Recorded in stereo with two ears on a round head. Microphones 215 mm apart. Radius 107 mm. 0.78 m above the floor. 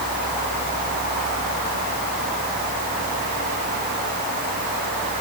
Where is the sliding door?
No sliding door in this recording.